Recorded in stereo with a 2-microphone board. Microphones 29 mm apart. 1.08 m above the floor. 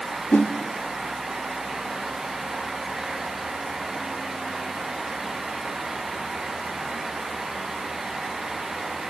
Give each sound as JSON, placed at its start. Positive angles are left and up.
{"t": 0.3, "sound": "a whoosh", "side_deg": 80, "distance_m": 1.8}